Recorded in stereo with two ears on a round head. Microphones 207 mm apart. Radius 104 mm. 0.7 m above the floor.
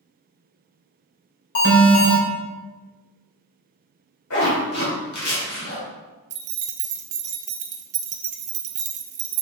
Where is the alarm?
55° left (ahead or behind), 3 m.